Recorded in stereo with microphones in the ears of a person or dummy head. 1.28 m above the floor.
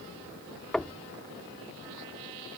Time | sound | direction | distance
0.7 | knocking | centre (ahead or behind) | ?